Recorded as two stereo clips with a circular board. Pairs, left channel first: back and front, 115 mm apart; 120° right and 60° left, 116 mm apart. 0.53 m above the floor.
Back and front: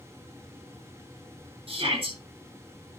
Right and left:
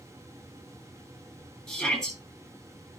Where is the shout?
35° right, 7.5 m.